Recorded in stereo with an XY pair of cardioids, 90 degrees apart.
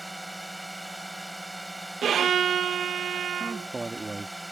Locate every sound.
0.0 s a drone: 10° right
2.0 s a violin: 65° right
3.4 s a man speaking: 25° right